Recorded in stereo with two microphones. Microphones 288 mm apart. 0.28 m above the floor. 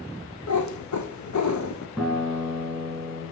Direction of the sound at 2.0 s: 5° left (ahead or behind).